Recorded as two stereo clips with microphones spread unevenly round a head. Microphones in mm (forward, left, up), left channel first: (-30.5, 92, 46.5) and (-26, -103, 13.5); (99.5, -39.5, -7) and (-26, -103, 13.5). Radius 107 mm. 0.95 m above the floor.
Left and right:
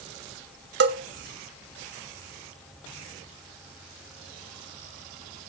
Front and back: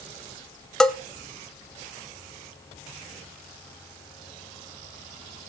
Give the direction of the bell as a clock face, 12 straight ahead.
2 o'clock.